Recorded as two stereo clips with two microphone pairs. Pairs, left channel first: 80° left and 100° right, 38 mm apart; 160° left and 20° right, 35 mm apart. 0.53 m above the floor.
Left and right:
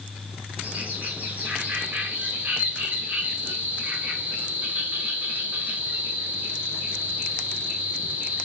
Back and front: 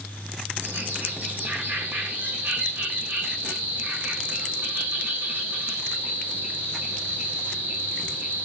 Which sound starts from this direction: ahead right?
A bird, at 0.6 s.